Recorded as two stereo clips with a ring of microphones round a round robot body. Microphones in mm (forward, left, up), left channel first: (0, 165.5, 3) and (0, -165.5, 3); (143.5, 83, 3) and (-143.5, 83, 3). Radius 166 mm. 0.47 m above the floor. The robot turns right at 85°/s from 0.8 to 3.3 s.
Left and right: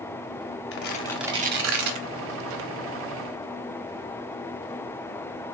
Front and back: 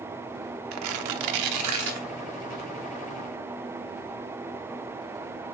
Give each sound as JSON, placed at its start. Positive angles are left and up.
{"t": 0.7, "sound": "tearing paper", "azimuth_deg": 145, "distance_m": 0.6}